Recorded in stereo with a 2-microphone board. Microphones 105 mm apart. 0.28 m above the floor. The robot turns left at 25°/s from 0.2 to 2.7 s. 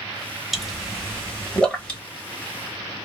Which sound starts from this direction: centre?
A pop, at 0.5 s.